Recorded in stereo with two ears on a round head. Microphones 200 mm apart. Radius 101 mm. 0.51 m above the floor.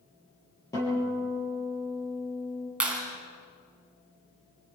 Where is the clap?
5° right (ahead or behind), 4.5 m.